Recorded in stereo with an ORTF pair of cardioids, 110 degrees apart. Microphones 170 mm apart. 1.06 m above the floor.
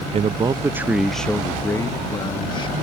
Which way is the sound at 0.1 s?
40° right.